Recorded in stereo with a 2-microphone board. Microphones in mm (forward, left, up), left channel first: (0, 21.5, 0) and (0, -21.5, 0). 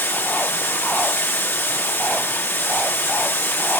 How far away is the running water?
About 1.9 m.